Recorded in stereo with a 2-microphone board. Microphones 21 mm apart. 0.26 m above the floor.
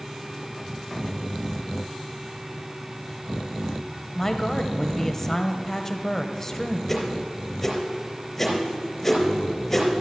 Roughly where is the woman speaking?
Centre.